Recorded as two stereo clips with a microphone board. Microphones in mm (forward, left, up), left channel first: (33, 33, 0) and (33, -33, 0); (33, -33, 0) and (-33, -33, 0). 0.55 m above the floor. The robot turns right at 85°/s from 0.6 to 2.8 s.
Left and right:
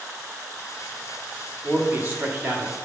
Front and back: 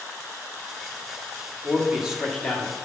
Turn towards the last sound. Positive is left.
turn(degrees=-45)